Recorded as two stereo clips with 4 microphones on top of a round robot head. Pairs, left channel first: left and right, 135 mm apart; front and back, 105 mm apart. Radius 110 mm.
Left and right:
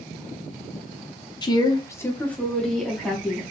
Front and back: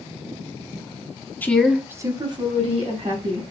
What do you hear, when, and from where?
1.4 s a woman speaking: 60° left, 1.1 m; by 3.4 s 175° right, 2.5 m